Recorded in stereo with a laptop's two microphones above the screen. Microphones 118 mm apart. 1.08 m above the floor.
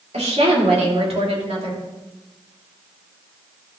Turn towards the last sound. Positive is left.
turn(degrees=-55)  # may be behind; listen again after turning